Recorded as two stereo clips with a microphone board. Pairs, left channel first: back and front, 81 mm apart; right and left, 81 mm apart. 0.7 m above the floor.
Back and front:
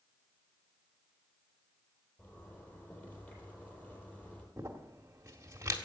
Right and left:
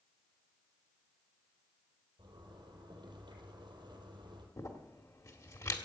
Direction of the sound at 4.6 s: 50° right.